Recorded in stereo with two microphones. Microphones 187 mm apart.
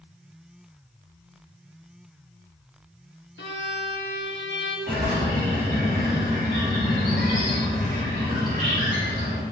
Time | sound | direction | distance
3.4 | a violin | 80° left | 0.9 m
4.9 | a bird | 50° right (ahead or behind) | 2 m